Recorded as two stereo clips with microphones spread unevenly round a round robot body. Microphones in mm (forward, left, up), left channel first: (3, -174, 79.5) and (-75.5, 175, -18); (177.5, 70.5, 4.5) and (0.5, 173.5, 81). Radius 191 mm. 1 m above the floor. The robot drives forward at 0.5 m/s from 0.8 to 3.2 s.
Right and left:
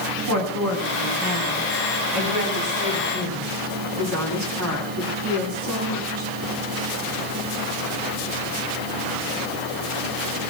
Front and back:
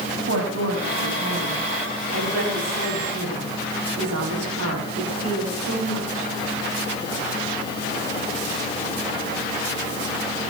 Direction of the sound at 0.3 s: 145° left.